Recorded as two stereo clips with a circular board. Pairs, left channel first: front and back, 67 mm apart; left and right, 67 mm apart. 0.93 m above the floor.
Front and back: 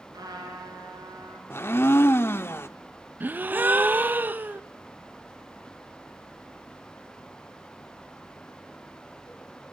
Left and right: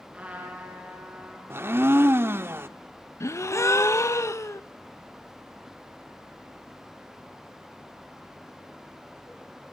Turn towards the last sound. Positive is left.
turn(degrees=125)